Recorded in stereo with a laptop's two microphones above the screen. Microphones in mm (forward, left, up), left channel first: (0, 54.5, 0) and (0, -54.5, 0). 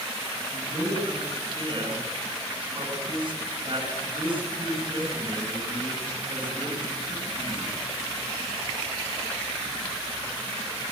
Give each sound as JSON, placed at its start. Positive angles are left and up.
{"t": 0.5, "sound": "a man speaking", "side_deg": -50, "distance_m": 8.5}